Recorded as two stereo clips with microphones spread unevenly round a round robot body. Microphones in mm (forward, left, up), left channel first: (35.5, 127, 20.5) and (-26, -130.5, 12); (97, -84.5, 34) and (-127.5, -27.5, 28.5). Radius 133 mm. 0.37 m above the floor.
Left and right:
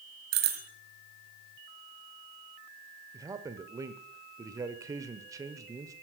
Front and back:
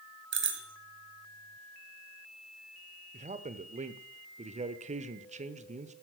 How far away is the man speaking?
About 1.0 m.